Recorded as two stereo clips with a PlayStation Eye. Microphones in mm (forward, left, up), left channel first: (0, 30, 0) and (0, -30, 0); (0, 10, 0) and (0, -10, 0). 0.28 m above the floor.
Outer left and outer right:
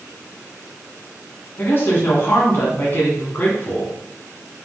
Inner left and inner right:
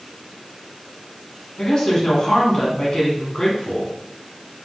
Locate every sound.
1.6 s a woman speaking: 40° left (ahead or behind), 2.0 m